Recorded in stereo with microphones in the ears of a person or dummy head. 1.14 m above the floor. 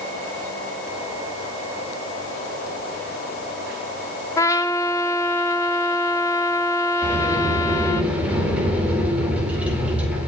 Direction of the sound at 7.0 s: 10° right (ahead or behind).